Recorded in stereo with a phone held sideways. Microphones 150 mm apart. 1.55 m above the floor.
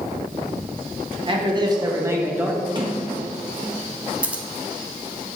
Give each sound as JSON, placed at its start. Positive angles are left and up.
{"t": 1.2, "sound": "a man speaking", "side_deg": -35, "distance_m": 1.6}
{"t": 2.8, "sound": "a sliding door", "side_deg": -30, "distance_m": 1.5}
{"t": 4.2, "sound": "scissors", "side_deg": -10, "distance_m": 0.8}